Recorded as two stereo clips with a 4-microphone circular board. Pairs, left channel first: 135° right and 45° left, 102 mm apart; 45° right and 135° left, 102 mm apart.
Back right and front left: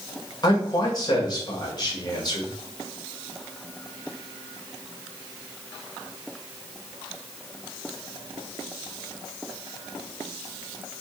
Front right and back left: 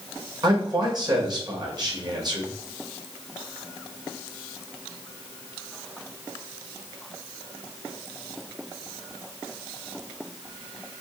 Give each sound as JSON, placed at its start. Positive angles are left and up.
{"t": 0.4, "sound": "a man speaking", "azimuth_deg": 180, "distance_m": 1.8}